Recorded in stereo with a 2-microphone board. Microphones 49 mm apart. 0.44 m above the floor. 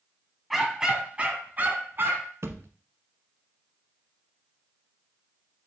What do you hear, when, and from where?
0.5 s a dog barking: 5° right (ahead or behind), 1.6 m; by 2.3 s 55° right (ahead or behind), 2 m
2.4 s a thud: 75° right (ahead or behind), 0.9 m